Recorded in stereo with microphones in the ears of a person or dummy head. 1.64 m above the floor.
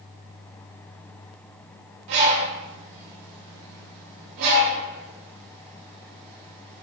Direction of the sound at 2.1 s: 70° right (ahead or behind).